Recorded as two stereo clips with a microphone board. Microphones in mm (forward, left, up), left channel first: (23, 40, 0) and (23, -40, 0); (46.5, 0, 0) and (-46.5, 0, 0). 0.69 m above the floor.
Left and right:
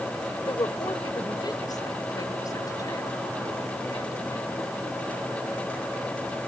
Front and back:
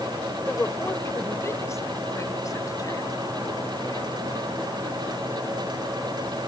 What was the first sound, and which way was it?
A woman speaking, 70° left.